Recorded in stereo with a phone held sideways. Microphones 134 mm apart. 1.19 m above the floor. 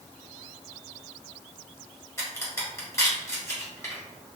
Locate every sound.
2.2 s a crack: 20° left (ahead or behind), 1.1 m